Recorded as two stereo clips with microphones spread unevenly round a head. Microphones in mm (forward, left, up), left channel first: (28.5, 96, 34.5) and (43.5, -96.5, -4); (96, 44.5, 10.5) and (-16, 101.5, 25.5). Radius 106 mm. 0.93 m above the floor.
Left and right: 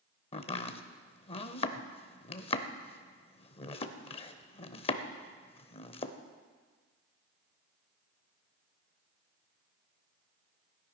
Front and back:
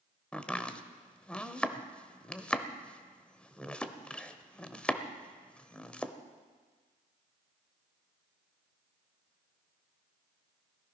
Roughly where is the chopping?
Ahead left.